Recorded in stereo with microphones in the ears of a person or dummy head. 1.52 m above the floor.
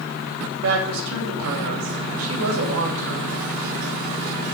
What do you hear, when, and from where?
0.6 s a woman speaking: 80° right, 2.5 m